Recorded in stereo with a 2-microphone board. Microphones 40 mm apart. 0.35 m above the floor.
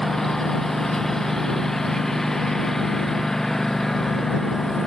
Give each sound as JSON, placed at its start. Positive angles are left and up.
{"t": 0.0, "sound": "a lawn mower", "side_deg": 10}